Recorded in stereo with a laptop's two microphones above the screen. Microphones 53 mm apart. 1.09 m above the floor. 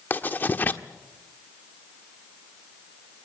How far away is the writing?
About 1.4 m.